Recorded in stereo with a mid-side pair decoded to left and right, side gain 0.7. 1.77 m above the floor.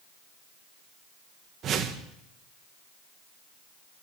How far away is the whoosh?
About 1.6 m.